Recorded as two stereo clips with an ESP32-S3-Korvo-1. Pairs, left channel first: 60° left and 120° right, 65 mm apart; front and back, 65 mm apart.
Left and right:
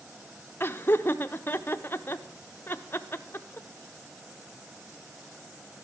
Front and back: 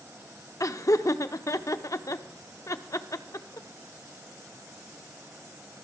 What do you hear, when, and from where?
0.6 s laughter: 10° left, 0.6 m